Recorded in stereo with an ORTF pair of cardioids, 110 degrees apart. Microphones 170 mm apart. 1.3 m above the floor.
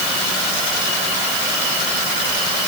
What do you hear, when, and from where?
Only background noise.